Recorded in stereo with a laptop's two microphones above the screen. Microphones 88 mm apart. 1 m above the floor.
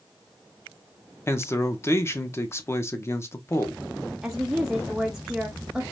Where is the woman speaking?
5° right (ahead or behind), 0.6 m.